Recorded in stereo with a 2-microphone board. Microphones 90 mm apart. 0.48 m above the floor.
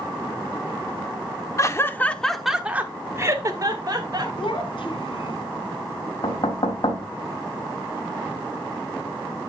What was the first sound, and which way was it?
Laughter, 35° left (ahead or behind).